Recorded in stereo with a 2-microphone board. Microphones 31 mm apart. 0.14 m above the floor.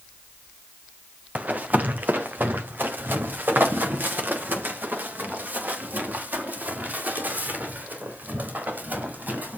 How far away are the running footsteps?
About 1.7 m.